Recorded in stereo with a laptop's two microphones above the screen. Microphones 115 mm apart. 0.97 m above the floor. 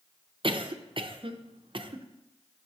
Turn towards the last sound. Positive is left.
turn(degrees=-50)  # may be behind; listen again after turning